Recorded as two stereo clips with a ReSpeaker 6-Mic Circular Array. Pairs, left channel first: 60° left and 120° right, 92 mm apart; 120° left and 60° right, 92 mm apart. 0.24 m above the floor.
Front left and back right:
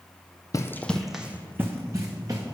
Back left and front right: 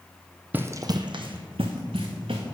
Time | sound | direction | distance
0.5 | running footsteps | 10° left | 0.5 m